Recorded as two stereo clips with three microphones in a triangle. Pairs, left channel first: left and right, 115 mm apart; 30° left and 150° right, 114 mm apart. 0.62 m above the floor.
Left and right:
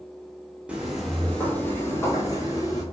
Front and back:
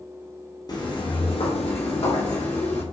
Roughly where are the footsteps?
Ahead.